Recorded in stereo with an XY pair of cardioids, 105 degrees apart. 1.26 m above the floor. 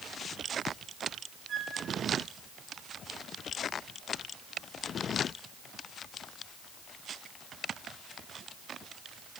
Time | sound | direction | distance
1.5 | a flute | 45° right | 3 m